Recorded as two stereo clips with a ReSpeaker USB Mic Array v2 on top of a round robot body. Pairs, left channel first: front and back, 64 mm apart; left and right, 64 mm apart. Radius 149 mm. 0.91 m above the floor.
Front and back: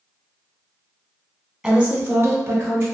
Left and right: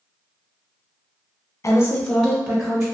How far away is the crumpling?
No crumpling in this recording.